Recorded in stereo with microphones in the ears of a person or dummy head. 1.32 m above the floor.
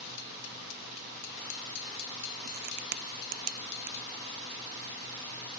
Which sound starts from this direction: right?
A crack, at 2.5 s.